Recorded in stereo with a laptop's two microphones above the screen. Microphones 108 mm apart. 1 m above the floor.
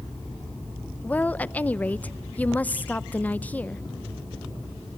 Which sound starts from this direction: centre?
A woman speaking, at 1.0 s.